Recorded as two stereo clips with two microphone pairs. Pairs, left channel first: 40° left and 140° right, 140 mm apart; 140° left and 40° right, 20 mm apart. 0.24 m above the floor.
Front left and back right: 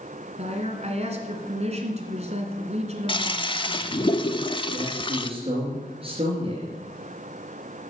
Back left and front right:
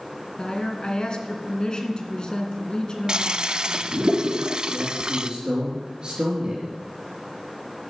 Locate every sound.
0.4 s a woman speaking: 175° right, 2 m
3.1 s a toilet flushing: 10° right, 0.6 m
4.7 s a man speaking: 90° right, 4.5 m